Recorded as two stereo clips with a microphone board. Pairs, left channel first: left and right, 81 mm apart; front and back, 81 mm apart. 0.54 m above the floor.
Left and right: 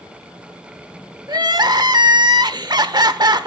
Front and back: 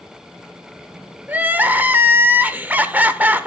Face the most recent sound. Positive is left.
turn(degrees=-115)